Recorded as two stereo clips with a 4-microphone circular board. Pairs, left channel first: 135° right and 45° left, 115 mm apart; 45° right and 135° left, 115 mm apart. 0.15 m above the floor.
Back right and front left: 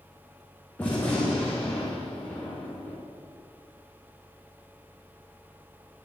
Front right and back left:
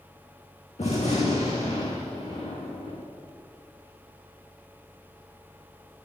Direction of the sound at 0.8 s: 60° right.